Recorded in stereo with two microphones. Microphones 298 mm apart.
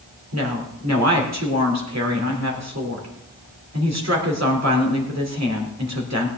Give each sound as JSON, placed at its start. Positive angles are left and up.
{"t": 0.3, "sound": "a woman speaking", "side_deg": -60, "distance_m": 3.0}